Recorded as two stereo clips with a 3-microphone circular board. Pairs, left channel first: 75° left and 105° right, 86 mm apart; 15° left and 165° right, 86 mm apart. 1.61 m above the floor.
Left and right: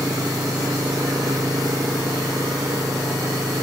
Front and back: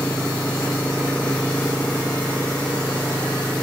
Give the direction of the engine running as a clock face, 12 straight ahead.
2 o'clock.